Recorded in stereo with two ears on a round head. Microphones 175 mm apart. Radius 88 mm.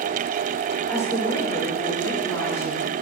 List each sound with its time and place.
0.9 s a woman speaking: 15° left (ahead or behind), 5 m